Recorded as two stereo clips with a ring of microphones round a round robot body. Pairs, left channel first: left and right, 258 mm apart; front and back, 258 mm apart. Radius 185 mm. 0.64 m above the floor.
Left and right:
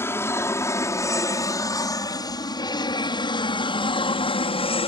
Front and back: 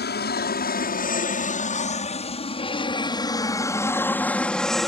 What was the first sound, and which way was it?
An aircraft, 15° left.